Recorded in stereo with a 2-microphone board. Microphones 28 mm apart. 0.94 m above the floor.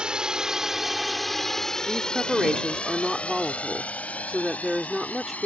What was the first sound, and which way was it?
A drone, 30° right (ahead or behind).